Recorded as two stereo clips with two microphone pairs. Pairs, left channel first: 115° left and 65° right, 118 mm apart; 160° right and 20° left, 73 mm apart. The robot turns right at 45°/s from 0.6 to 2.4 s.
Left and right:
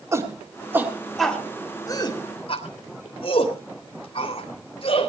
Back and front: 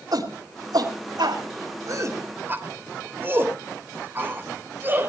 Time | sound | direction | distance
0.1 | a shout | straight ahead | 3 m